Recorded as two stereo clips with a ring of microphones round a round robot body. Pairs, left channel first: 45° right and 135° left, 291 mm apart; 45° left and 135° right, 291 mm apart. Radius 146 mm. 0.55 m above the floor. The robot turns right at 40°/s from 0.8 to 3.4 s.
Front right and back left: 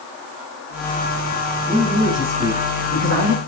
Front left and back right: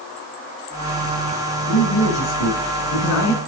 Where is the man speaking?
30° left, 5 m; by 3.4 s 100° left, 5 m.